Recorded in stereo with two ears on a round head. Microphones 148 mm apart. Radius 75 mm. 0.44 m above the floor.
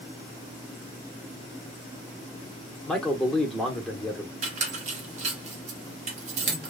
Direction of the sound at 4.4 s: 40° right (ahead or behind).